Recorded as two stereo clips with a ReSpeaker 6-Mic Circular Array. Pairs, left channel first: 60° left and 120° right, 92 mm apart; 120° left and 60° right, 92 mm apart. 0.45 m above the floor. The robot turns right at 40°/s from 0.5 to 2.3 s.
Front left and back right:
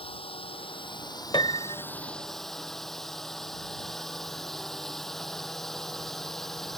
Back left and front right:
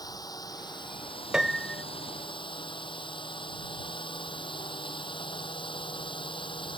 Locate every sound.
0.0 s a drone: 75° left; by 6.8 s 145° left
1.3 s a piano: 25° left; by 1.8 s 45° left